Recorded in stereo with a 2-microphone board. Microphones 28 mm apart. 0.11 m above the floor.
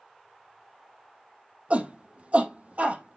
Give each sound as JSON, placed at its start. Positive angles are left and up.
{"t": 1.7, "sound": "a shout", "side_deg": -50, "distance_m": 4.0}